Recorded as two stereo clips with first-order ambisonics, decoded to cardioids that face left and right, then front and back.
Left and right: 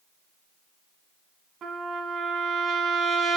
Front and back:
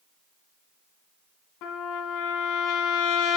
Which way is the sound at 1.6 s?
30° right.